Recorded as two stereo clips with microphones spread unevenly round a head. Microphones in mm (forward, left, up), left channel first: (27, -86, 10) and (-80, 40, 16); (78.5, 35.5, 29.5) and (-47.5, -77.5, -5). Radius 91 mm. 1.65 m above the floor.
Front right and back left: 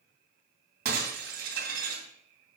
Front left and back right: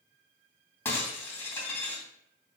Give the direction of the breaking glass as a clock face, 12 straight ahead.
8 o'clock.